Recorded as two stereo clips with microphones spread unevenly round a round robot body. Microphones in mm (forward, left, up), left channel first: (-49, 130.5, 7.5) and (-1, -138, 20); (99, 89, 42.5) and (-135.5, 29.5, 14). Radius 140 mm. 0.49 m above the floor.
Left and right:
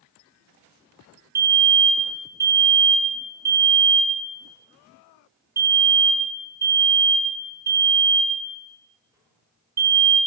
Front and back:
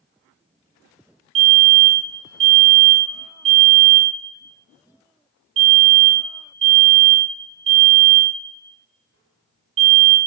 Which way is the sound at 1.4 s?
160° right.